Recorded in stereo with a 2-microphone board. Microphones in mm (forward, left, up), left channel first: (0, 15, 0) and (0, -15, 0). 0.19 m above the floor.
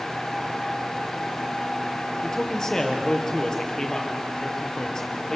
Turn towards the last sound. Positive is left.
turn(degrees=20)  # may be behind; listen again after turning